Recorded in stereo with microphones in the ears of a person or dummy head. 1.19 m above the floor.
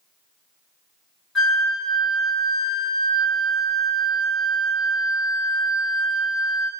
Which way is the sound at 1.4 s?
Centre (ahead or behind).